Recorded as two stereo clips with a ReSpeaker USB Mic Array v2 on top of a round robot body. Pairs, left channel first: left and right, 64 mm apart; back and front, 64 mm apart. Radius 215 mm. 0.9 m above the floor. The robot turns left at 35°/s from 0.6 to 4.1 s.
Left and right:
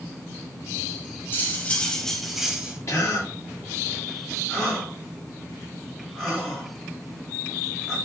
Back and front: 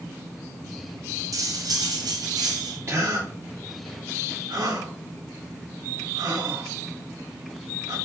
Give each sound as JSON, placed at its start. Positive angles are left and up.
{"t": 1.3, "sound": "cutlery clinking", "azimuth_deg": 35, "distance_m": 1.8}
{"t": 2.9, "sound": "a gasp", "azimuth_deg": 50, "distance_m": 4.0}